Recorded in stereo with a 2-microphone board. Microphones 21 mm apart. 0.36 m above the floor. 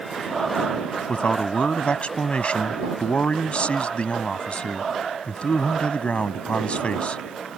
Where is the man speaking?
60° left (ahead or behind).